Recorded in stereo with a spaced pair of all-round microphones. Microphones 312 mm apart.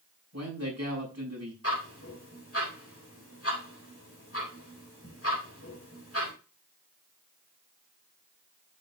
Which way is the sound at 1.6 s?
45° left (ahead or behind).